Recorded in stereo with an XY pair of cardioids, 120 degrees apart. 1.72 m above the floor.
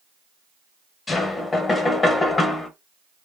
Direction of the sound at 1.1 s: 30° left.